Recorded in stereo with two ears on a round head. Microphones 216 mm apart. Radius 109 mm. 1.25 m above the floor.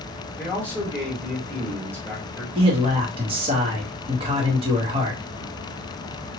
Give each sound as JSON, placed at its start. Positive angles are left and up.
{"t": 0.4, "sound": "a man speaking", "side_deg": 5, "distance_m": 1.7}
{"t": 2.5, "sound": "a man speaking", "side_deg": -25, "distance_m": 1.4}